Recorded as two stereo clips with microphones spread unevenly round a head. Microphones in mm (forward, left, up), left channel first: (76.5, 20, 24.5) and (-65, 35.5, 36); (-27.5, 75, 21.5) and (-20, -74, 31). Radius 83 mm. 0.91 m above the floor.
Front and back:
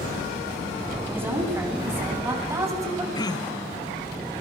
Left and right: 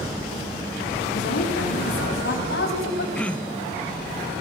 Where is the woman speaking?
100° left, 9.5 m; by 3.0 s 105° left, 7 m.